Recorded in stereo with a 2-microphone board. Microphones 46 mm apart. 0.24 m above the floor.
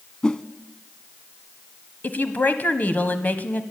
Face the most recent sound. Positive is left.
turn(degrees=40)  # may be behind; listen again after turning